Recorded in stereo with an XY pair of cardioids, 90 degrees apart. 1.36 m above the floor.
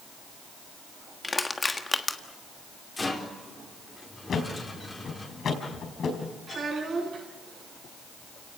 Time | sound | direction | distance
1.2 | crushing | 25° left | 1.5 m
3.0 | a rattle | 25° left | 4 m
4.3 | a thud | 60° left | 4.5 m
6.5 | a child speaking | 65° right | 7.5 m